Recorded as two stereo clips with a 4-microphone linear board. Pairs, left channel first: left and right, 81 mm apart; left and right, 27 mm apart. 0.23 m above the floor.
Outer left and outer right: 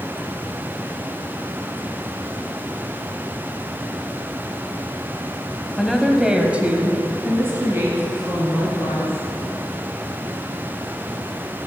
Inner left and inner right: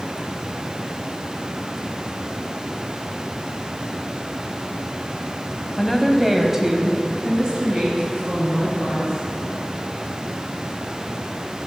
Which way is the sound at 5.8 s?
Centre (ahead or behind).